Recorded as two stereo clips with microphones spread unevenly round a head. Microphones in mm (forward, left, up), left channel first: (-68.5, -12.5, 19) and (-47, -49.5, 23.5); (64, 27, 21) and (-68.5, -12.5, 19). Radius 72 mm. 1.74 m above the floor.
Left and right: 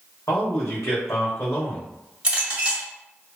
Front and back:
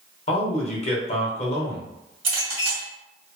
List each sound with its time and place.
0.3 s a man speaking: 55° left, 1.0 m
2.2 s a clink: 115° right, 1.8 m